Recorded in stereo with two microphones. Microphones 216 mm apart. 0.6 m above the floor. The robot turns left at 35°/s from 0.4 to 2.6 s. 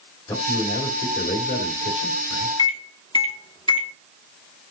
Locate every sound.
0.3 s a man speaking: 160° left, 3 m; by 2.5 s 85° left, 3 m
2.6 s a microwave: 25° left (ahead or behind), 1.1 m